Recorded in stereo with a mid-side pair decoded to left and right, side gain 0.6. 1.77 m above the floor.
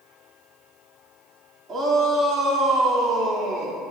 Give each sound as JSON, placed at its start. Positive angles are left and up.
{"t": 1.7, "sound": "a shout", "azimuth_deg": -30, "distance_m": 3.5}